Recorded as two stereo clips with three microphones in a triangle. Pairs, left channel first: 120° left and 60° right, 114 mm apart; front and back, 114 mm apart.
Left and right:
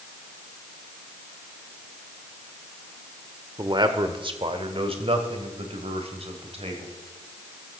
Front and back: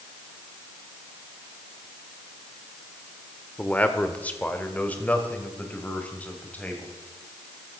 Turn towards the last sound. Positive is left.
turn(degrees=-75)